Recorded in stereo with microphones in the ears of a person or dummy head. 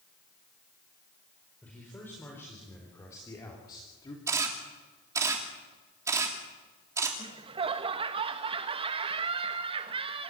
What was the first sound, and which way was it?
A man speaking, 10° left (ahead or behind).